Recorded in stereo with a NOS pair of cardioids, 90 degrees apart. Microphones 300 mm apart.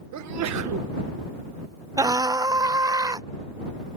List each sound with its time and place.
0.1 s a sneeze: 65° right
2.0 s a scream: 10° right